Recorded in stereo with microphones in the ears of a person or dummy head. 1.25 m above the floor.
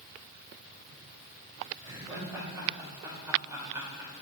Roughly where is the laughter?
Centre.